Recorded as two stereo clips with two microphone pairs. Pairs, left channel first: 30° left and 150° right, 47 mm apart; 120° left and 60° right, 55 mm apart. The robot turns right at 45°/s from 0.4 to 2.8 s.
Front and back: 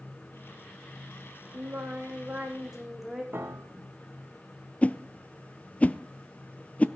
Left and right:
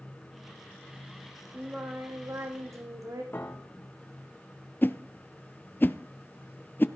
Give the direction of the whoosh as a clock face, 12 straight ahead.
9 o'clock.